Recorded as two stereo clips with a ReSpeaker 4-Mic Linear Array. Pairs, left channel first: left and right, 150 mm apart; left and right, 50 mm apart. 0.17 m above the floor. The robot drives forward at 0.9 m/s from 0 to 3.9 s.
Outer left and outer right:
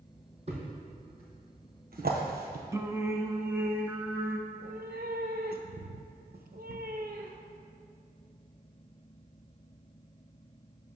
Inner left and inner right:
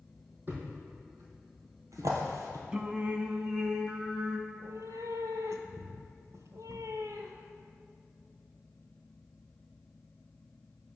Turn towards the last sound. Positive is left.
turn(degrees=-80)